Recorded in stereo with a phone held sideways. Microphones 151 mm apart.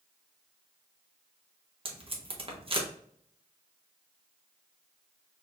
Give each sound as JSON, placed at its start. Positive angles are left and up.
{"t": 1.9, "sound": "tape being pulled", "side_deg": -35, "distance_m": 0.8}